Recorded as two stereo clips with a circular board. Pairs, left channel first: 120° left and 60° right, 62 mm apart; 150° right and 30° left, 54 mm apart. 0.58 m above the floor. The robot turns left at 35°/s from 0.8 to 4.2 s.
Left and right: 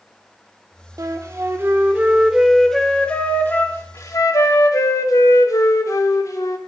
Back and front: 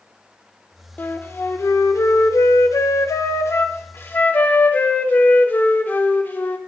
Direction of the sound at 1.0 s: 95° right.